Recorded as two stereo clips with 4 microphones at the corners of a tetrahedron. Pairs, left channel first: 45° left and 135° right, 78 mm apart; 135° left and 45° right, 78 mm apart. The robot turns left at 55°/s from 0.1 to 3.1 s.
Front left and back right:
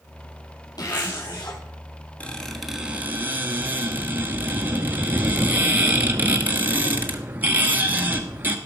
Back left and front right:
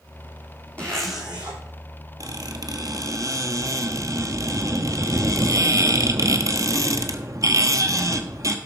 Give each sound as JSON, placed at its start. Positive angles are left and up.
{"t": 0.8, "sound": "a zipper", "azimuth_deg": 65, "distance_m": 3.5}
{"t": 2.2, "sound": "a squeak", "azimuth_deg": -25, "distance_m": 1.2}